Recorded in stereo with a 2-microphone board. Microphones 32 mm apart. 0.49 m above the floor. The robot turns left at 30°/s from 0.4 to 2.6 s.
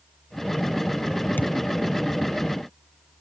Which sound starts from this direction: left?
A thud, at 1.4 s.